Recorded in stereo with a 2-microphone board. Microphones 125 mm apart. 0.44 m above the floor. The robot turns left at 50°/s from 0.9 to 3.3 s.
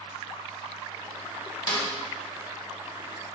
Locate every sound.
1.7 s a snare drum: 35° left (ahead or behind), 0.9 m; by 1.9 s 30° left (ahead or behind), 0.9 m